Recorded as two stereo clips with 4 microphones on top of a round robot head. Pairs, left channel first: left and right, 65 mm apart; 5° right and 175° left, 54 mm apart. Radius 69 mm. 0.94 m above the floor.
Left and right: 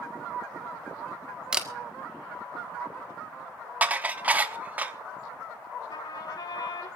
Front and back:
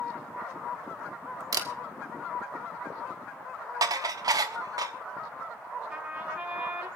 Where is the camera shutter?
170° right, 1.7 m.